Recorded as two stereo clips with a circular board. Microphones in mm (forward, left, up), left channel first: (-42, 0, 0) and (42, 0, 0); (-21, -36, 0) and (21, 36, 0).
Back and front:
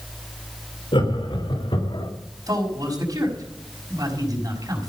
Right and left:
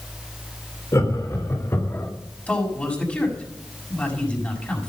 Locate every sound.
0.9 s laughter: 170° right, 3.5 m; by 2.1 s straight behind, 2 m
2.5 s a man speaking: 45° right, 5.5 m